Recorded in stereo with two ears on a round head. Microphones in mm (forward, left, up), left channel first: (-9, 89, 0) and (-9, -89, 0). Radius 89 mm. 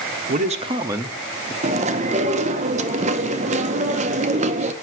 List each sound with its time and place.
0.3 s a man speaking: 40° right (ahead or behind), 0.9 m; by 1.5 s 15° left (ahead or behind), 0.8 m
1.6 s chewing: 35° right (ahead or behind), 0.7 m